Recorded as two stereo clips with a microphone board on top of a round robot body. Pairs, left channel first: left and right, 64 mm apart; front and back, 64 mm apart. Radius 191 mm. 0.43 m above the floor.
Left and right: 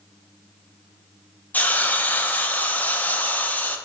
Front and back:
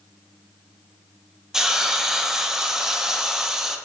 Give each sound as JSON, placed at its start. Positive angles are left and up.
{"t": 1.5, "sound": "a hiss", "azimuth_deg": 110, "distance_m": 0.7}